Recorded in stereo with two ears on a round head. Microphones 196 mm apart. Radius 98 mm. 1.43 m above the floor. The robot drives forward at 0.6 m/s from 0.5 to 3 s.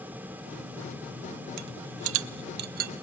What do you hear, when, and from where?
1.6 s a rattle: 85° right, 0.6 m; by 2.9 s 40° right (ahead or behind), 1.0 m